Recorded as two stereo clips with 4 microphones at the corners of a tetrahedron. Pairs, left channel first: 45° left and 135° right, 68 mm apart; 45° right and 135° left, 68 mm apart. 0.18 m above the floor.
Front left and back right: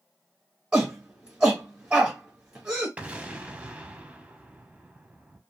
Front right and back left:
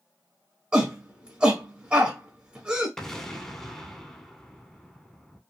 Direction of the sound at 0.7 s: 175° left.